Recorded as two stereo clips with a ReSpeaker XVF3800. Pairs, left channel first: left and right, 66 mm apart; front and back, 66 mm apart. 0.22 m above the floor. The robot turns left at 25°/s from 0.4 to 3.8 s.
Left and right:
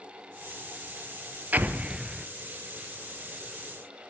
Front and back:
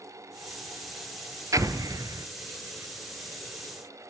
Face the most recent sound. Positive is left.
turn(degrees=150)